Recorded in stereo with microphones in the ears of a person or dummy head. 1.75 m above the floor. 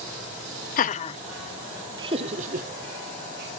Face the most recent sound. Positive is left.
turn(degrees=-60)  # may be behind; listen again after turning